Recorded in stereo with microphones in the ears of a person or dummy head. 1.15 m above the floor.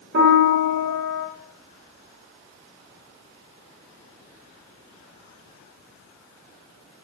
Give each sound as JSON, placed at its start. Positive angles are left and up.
{"t": 0.1, "sound": "a piano", "side_deg": -55, "distance_m": 0.9}